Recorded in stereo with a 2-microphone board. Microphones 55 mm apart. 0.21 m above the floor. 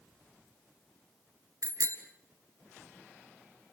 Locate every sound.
1.6 s a bicycle bell: 70° right (ahead or behind), 2 m